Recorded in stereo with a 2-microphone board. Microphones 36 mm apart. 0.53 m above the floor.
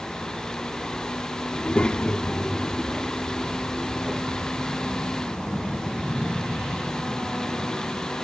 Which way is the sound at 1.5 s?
30° left (ahead or behind).